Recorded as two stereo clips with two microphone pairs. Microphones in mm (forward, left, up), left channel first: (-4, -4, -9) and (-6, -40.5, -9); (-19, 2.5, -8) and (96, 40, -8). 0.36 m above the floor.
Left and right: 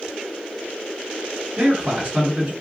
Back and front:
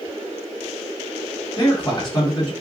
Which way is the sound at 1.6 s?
125° right.